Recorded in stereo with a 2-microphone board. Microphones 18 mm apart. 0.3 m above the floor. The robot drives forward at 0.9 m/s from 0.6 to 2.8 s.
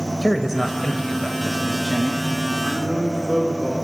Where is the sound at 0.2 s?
15° right (ahead or behind), 0.9 m; by 2.5 s 5° right (ahead or behind), 2 m.